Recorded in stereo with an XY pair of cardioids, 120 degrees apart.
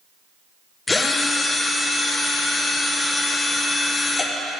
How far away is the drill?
About 0.8 m.